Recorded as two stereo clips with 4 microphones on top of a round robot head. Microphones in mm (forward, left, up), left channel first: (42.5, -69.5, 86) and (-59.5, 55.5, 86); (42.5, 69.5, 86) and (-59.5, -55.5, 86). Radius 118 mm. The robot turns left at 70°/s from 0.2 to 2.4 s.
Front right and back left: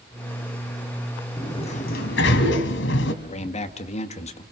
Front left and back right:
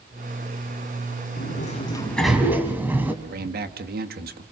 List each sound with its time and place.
1.4 s a sliding door: 25° left, 2 m; by 3.1 s 50° right, 2 m
3.2 s a man speaking: 100° right, 2 m